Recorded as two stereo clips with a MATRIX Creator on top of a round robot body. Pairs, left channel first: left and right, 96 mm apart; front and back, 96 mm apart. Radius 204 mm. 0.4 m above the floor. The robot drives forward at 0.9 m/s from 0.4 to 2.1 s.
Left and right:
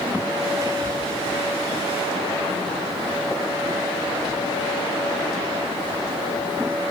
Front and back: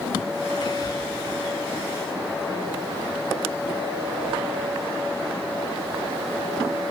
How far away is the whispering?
About 1.5 m.